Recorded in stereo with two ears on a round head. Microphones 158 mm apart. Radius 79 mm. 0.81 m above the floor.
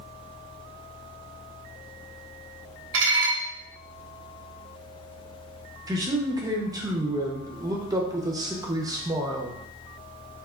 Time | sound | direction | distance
2.9 | dishes clattering | 75° right (ahead or behind) | 0.9 m
5.9 | a man speaking | 20° right (ahead or behind) | 0.7 m